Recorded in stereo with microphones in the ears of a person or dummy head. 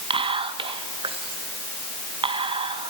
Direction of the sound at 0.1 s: 30° right (ahead or behind).